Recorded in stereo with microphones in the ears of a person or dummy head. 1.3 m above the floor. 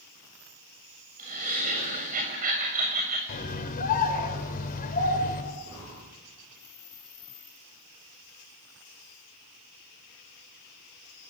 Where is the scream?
45° left (ahead or behind), 4.5 m.